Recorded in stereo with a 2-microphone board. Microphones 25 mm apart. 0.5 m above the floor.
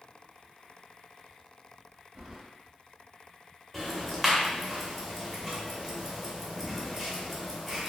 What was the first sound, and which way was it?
Keys jangling, 15° right (ahead or behind).